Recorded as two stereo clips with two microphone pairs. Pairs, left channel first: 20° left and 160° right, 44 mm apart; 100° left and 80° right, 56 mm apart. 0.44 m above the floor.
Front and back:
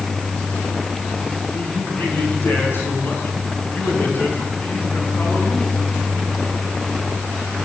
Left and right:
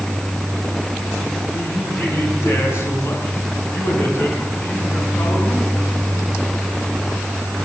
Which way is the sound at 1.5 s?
60° left.